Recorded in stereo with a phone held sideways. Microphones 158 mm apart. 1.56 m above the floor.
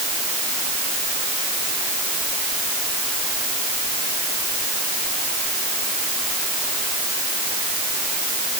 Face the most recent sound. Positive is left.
No sound to turn to.